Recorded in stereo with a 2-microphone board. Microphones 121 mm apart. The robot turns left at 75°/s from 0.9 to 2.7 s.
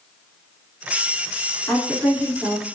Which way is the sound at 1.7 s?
15° left.